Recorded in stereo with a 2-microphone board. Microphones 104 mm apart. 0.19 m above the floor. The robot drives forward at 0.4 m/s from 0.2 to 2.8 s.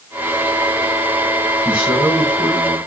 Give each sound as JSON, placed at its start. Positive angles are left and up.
{"t": 1.6, "sound": "a man speaking", "side_deg": -15, "distance_m": 1.5}